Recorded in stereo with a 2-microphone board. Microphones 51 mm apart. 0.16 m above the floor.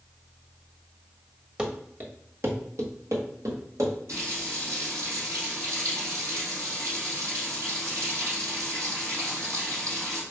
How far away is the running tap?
About 3 m.